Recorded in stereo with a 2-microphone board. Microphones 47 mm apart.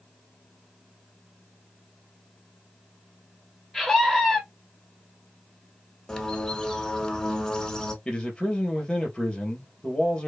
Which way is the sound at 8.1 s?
20° left (ahead or behind).